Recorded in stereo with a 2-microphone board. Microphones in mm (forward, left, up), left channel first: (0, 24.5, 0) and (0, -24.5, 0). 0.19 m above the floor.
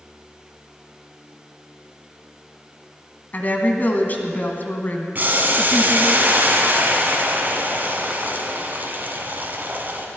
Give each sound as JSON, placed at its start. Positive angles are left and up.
{"t": 3.3, "sound": "a woman speaking", "side_deg": 35, "distance_m": 1.7}
{"t": 5.2, "sound": "boiling", "side_deg": -40, "distance_m": 1.7}